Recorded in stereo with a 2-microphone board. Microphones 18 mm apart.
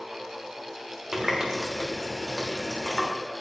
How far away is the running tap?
About 1.1 m.